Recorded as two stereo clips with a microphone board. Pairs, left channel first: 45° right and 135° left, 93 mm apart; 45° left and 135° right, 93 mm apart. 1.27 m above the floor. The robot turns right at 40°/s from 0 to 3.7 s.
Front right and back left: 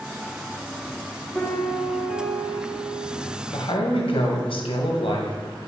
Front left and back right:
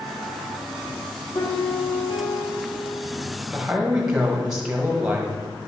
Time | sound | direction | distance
1.4 | a piano | 30° left | 1.3 m
3.5 | a man speaking | 60° right | 1.4 m